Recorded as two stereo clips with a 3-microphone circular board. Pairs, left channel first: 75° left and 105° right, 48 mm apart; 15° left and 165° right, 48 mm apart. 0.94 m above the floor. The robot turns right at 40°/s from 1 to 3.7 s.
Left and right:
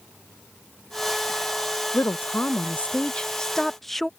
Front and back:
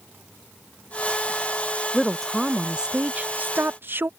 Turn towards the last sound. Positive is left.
turn(degrees=160)